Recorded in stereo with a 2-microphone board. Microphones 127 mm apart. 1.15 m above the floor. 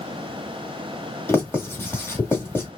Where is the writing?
15° left (ahead or behind), 1.8 m.